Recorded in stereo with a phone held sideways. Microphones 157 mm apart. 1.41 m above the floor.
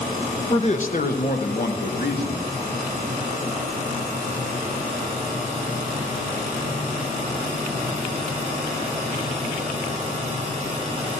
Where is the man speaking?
35° left (ahead or behind), 1.2 m; by 2.5 s 85° left, 3 m.